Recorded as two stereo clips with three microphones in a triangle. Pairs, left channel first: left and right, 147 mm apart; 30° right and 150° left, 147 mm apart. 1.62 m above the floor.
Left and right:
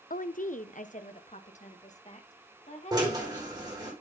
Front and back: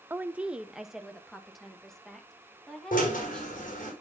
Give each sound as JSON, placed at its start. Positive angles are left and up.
{"t": 0.1, "sound": "a woman speaking", "azimuth_deg": 75, "distance_m": 0.6}
{"t": 2.9, "sound": "a drill", "azimuth_deg": -30, "distance_m": 5.5}